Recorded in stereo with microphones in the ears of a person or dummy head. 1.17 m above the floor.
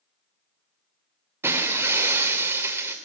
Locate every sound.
1.4 s breaking glass: 15° right (ahead or behind), 2 m